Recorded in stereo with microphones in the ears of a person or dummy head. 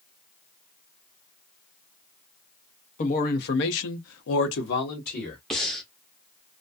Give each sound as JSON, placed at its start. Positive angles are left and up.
{"t": 3.0, "sound": "a man speaking", "side_deg": 40, "distance_m": 0.9}
{"t": 5.5, "sound": "breathing", "side_deg": 5, "distance_m": 0.7}